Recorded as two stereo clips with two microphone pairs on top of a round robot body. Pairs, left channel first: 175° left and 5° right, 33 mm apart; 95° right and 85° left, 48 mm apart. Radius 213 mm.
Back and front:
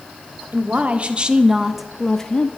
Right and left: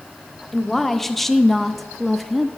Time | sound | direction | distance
0.5 | a woman speaking | 5° right | 1.8 m